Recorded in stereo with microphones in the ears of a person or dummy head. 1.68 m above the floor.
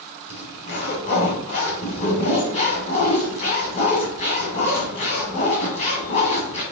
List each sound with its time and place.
0.3 s a zipper: 35° left (ahead or behind), 2 m